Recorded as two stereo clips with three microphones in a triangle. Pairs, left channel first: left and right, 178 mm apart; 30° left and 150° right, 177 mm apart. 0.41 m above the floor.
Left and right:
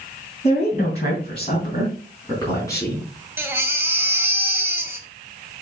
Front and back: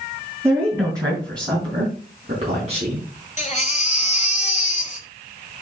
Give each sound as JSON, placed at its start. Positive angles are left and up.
{"t": 0.4, "sound": "a woman speaking", "azimuth_deg": 135, "distance_m": 3.5}
{"t": 3.4, "sound": "a baby crying", "azimuth_deg": -15, "distance_m": 1.5}